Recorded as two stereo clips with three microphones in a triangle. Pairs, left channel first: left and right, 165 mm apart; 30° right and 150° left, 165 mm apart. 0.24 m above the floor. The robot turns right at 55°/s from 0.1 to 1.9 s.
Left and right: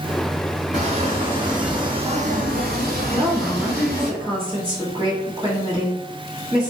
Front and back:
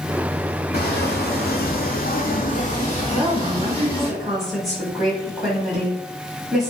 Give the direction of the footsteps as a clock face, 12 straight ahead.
1 o'clock.